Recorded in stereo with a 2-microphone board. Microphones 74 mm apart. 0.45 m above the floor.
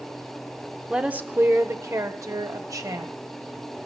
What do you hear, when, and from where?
0.9 s a woman speaking: 10° right (ahead or behind), 0.7 m; by 3.1 s 55° right (ahead or behind), 1.9 m